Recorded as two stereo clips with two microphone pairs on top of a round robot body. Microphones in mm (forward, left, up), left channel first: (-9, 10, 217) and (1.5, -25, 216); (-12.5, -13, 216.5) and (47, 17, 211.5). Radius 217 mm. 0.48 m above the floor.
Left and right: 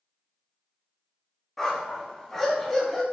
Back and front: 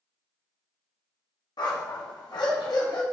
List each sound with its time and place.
1.6 s a dog barking: 170° right, 1.5 m